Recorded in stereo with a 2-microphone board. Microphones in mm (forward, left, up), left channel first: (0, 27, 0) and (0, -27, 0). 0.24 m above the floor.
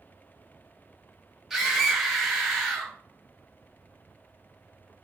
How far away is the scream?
About 1.0 m.